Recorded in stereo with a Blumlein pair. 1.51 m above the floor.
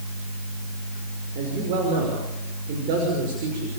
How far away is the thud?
No thud in this recording.